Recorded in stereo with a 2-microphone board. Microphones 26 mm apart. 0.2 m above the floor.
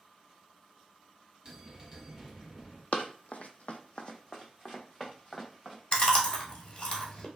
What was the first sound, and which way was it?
A bell, 15° right (ahead or behind).